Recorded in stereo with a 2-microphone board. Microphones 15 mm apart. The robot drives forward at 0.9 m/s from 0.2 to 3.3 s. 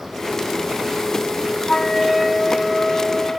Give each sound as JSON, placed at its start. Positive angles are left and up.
{"t": 1.7, "sound": "a flute", "side_deg": 45, "distance_m": 1.3}